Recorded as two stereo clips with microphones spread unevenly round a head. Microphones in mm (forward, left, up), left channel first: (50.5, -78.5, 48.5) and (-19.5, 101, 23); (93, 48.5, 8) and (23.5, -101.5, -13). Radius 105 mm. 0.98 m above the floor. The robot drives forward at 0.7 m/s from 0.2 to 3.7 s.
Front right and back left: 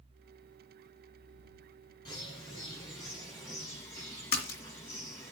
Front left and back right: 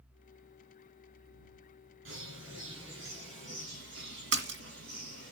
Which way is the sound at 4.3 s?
125° right.